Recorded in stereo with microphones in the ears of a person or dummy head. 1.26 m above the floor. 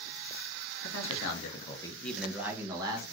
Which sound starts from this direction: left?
A man speaking, at 0.8 s.